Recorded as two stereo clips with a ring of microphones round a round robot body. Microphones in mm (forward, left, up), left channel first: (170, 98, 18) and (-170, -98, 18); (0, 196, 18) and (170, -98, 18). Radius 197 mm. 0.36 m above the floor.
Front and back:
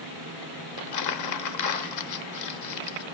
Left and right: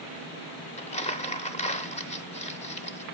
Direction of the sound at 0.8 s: 55° left.